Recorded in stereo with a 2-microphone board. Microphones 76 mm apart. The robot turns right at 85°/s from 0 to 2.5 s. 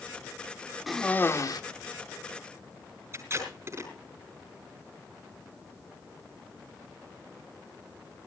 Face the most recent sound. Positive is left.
turn(degrees=-35)  # may be behind; listen again after turning